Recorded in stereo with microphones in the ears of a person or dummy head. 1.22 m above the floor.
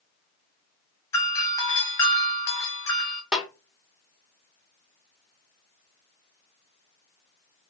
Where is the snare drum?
5° right (ahead or behind), 0.8 m.